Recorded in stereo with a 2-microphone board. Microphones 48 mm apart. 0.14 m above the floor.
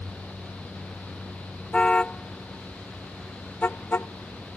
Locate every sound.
1.7 s a car horn: 20° left (ahead or behind); by 4.1 s 50° left (ahead or behind)